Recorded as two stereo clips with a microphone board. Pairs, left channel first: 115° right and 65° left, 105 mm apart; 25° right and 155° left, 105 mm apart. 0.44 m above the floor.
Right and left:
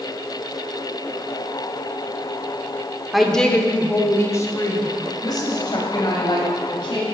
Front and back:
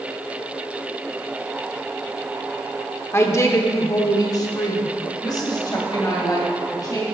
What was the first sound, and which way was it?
A woman speaking, 20° right.